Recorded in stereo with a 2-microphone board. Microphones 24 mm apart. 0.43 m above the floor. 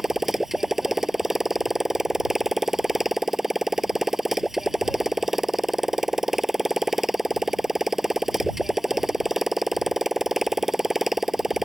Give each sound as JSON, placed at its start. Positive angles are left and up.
{"t": 0.0, "sound": "a motorcycle", "side_deg": -10}